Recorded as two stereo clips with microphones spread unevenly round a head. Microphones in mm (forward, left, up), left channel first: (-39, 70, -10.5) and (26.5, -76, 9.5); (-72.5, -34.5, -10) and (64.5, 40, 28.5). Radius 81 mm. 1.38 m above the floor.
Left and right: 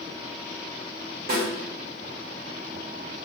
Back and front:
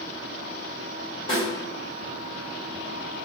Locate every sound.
1.3 s a snare drum: 85° right, 1.8 m